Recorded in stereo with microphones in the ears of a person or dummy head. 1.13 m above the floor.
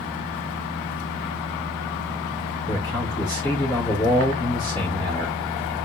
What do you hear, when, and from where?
2.7 s a man speaking: 15° left (ahead or behind), 4 m